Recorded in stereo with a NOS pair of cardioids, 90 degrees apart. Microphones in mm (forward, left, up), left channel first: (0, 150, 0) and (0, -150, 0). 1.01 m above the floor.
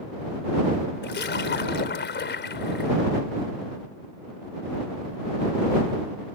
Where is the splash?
35° left.